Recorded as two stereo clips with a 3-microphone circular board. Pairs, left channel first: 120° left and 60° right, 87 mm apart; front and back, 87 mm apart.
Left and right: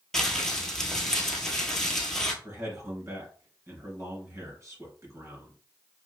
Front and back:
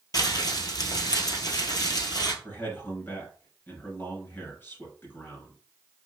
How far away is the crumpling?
About 1.1 m.